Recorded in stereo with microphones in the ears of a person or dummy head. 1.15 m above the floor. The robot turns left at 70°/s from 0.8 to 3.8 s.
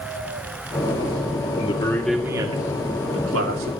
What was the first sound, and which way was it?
A man speaking, 40° left.